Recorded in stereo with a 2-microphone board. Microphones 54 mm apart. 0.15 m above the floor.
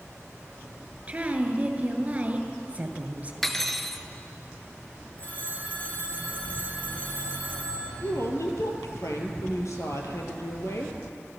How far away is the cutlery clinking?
About 1.4 m.